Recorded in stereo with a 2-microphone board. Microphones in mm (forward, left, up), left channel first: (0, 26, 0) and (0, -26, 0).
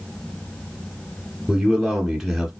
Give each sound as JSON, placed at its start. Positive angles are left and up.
{"t": 1.5, "sound": "a man speaking", "side_deg": -5, "distance_m": 1.8}